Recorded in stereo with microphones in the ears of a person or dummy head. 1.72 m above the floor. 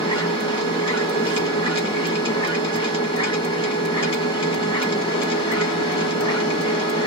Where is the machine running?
25° left (ahead or behind), 1.3 m.